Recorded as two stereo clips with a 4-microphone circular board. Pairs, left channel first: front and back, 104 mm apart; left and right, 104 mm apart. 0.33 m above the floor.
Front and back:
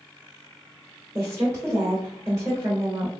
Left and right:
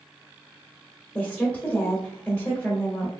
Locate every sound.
1.1 s a woman speaking: 155° left, 1.2 m